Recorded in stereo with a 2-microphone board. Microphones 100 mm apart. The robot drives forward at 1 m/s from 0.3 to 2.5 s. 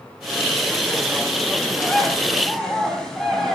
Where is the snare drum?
No snare drum in this recording.